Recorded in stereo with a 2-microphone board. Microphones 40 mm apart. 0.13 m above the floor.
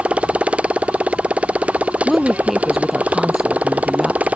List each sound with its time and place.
0.0 s a motorcycle: 35° right (ahead or behind); by 4.4 s 40° right (ahead or behind)
2.0 s a woman speaking: 5° right (ahead or behind)